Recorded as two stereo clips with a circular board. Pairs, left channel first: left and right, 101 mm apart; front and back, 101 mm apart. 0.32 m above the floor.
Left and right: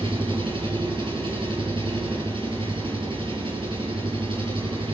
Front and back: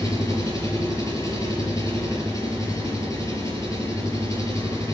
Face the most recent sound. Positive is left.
turn(degrees=-60)